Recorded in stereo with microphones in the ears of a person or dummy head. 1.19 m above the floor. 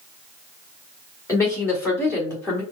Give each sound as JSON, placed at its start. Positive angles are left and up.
{"t": 1.3, "sound": "a woman speaking", "side_deg": 20, "distance_m": 2.5}